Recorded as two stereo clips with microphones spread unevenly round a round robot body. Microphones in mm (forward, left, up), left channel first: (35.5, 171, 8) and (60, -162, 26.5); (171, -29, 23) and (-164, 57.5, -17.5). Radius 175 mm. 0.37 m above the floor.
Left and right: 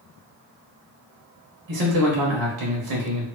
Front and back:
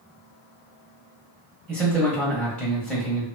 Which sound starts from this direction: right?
A man speaking, at 1.7 s.